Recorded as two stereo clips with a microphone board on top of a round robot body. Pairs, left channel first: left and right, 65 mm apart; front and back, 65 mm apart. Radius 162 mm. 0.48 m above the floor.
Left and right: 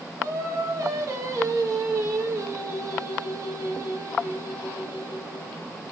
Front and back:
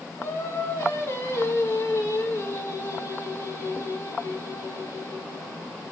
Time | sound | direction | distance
0.2 | singing | 50° right | 2.5 m